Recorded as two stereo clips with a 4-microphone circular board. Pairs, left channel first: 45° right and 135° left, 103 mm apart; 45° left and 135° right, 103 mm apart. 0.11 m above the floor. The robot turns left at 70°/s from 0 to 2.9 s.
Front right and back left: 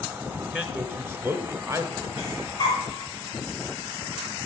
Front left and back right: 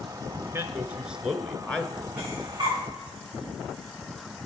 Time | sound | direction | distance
0.5 | a man speaking | 165° right | 1.2 m
2.2 | breathing | 60° right | 6 m